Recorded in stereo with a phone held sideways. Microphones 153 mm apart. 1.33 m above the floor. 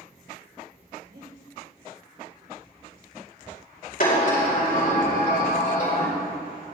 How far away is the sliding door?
About 5 m.